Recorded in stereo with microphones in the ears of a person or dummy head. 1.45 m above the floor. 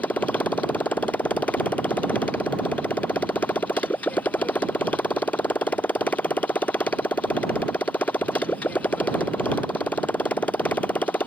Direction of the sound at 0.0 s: 10° left (ahead or behind).